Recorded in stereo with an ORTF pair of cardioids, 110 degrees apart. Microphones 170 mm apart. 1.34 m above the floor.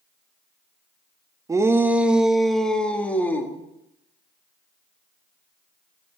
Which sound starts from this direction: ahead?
A shout, at 1.5 s.